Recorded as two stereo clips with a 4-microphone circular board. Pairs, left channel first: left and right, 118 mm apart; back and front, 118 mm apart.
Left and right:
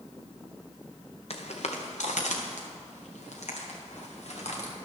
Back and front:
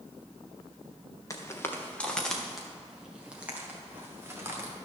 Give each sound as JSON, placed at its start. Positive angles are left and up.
{"t": 1.3, "sound": "footsteps", "azimuth_deg": 120, "distance_m": 1.4}